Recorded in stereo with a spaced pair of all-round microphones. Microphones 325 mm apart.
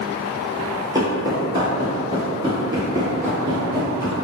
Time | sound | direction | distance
0.9 | footsteps | 10° right (ahead or behind) | 1.2 m